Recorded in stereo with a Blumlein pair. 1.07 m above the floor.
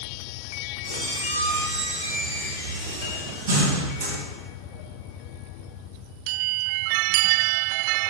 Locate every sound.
0.8 s a squeak: 65° right, 0.9 m